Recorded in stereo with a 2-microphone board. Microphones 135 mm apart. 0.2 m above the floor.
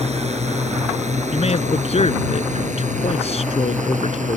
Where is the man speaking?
55° left (ahead or behind).